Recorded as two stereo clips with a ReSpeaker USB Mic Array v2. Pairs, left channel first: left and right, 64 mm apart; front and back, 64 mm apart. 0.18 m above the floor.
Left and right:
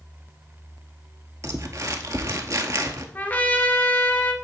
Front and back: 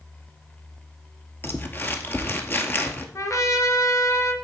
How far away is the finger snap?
I don't hear a finger snap.